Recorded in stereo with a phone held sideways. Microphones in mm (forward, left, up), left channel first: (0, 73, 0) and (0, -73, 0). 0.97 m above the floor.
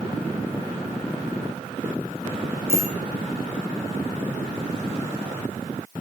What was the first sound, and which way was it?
A bicycle bell, 15° right (ahead or behind).